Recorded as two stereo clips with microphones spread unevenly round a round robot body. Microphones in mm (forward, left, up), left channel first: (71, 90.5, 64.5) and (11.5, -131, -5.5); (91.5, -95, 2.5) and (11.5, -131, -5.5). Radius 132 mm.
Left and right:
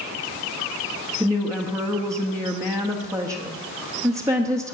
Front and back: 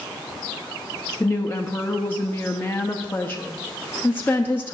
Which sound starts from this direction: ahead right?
A woman speaking, at 1.2 s.